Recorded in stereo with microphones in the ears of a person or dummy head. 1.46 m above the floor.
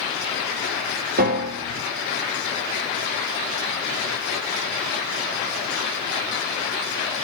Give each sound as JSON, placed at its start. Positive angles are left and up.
{"t": 1.2, "sound": "a piano", "side_deg": -50, "distance_m": 0.7}